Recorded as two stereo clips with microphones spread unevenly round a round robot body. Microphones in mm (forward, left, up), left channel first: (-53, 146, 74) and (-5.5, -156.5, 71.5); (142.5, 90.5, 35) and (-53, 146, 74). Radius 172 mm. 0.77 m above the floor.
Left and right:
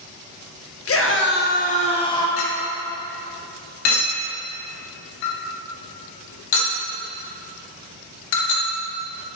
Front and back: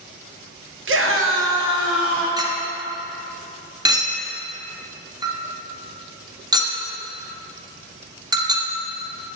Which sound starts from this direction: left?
A clink, at 2.4 s.